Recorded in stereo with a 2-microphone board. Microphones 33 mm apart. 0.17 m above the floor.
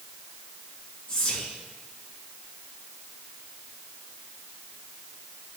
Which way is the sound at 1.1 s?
30° left (ahead or behind).